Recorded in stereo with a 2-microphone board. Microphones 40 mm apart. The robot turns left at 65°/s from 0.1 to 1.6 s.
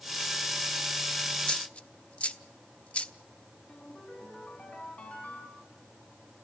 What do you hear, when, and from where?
1.4 s a dropped coin: 20° left (ahead or behind), 0.7 m; by 3.1 s 30° left (ahead or behind), 0.7 m
3.7 s a ringtone: 35° left (ahead or behind), 8 m